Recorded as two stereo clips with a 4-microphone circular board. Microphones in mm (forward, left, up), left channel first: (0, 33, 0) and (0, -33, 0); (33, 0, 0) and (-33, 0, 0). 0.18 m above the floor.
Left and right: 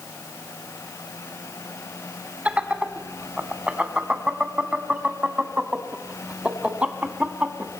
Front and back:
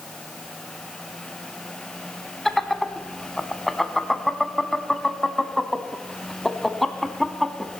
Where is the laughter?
85° right, 1.0 m.